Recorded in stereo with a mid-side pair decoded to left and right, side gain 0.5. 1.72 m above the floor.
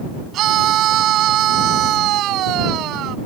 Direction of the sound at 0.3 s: 70° right.